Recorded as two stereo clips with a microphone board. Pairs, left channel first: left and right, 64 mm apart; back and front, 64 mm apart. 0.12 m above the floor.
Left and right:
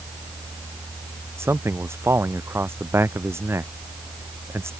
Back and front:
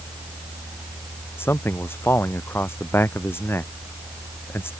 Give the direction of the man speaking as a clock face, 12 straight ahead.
4 o'clock.